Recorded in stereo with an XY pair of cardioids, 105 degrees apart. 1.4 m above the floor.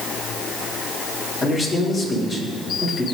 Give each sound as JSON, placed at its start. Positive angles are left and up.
{"t": 1.4, "sound": "a man speaking", "azimuth_deg": 40, "distance_m": 3.5}